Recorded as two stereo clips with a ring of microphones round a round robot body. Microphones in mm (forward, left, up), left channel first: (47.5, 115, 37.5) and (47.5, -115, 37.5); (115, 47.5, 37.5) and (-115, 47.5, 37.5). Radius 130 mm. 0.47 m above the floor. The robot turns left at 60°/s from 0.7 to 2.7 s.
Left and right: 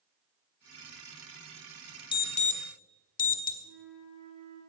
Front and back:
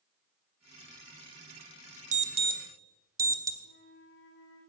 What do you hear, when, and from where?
2.1 s an alarm: 145° left, 1.1 m; by 3.5 s 110° left, 1.1 m
3.6 s a flute: 110° right, 6.5 m